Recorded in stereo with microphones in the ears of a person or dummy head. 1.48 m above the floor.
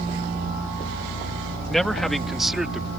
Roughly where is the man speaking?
Centre.